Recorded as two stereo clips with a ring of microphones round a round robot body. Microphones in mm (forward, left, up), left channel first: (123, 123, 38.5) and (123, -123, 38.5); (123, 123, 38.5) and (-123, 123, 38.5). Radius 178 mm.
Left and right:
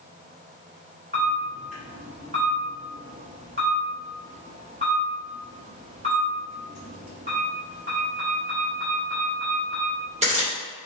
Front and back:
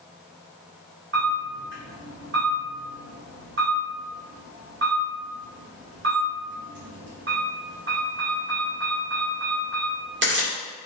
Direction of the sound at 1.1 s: 150° right.